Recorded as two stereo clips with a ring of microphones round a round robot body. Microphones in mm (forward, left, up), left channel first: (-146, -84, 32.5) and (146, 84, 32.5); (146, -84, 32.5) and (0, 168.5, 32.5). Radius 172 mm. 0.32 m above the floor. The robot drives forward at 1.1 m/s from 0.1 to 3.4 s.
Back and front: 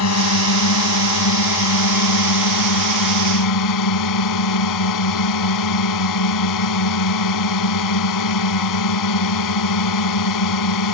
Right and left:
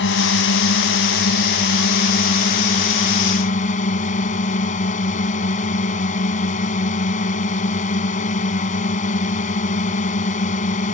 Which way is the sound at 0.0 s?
110° right.